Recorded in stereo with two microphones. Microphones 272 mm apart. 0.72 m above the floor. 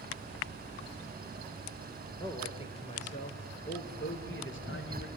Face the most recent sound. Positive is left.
turn(degrees=50)  # may be behind; listen again after turning